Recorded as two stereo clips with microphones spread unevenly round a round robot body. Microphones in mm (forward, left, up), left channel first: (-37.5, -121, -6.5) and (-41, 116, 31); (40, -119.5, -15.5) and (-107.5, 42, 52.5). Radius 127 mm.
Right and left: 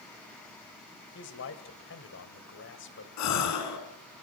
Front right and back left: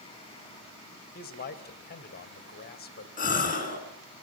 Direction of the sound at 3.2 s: 95° right.